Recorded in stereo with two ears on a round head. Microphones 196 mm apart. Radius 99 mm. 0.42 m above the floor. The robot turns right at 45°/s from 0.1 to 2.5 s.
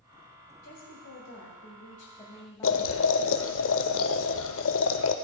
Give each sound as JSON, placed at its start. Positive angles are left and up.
{"t": 0.6, "sound": "a woman speaking", "azimuth_deg": 80, "distance_m": 1.8}
{"t": 2.6, "sound": "boiling", "side_deg": 60, "distance_m": 0.5}